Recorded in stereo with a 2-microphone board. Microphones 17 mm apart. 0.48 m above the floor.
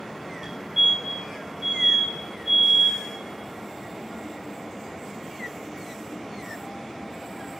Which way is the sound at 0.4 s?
20° right (ahead or behind).